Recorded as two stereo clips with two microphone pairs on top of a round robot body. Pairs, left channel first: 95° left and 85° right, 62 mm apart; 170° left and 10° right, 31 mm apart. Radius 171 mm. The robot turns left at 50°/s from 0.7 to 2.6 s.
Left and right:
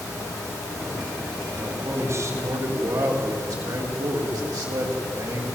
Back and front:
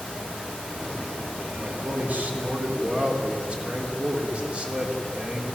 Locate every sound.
1.6 s a man speaking: 15° right, 3.5 m; by 5.5 s 65° right, 3.5 m